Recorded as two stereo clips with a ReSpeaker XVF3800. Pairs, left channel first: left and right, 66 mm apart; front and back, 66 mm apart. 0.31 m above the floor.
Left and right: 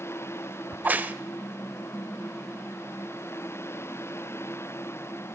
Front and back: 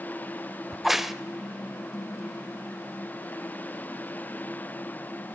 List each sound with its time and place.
0.7 s a crack: 95° right, 0.5 m